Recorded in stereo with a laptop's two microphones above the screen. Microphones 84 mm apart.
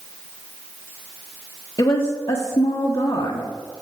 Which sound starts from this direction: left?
A woman speaking, at 1.8 s.